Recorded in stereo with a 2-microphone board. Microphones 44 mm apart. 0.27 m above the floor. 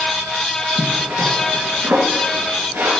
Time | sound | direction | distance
0.8 | a zipper | 60° right (ahead or behind) | 3 m